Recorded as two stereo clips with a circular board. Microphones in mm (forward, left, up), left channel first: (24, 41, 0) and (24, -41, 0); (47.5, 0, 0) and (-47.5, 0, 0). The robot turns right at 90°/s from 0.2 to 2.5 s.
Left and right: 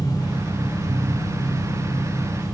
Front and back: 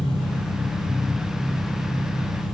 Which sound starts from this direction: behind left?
An engine running, at 0.0 s.